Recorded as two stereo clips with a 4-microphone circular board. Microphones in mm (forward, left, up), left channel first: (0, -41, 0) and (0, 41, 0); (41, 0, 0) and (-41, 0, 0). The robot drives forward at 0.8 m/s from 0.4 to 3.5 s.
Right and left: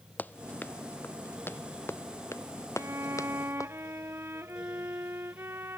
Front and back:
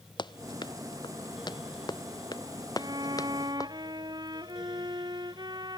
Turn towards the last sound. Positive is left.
turn(degrees=150)